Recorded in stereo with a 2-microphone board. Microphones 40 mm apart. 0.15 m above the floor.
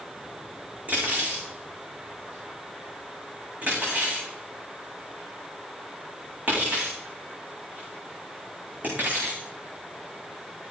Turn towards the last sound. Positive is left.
turn(degrees=-40)  # may be behind; listen again after turning